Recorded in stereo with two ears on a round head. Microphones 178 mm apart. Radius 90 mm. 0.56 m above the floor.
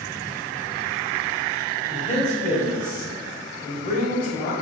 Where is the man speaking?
40° left (ahead or behind), 2.5 m.